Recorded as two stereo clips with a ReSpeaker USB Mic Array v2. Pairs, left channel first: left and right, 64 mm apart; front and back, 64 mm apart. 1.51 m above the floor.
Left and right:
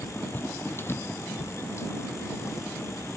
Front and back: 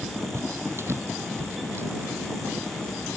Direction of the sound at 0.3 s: 145° left.